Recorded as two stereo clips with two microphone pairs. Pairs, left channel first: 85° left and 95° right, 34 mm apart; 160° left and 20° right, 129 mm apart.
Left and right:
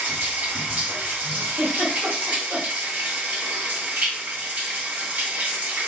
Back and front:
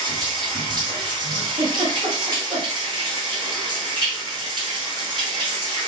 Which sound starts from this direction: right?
A giggle, at 1.6 s.